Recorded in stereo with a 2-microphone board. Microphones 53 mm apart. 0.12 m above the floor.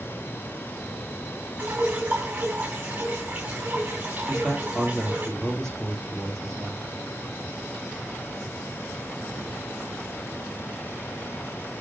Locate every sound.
1.6 s dripping: 35° right (ahead or behind), 3.5 m
4.3 s a man speaking: 10° left (ahead or behind), 3.5 m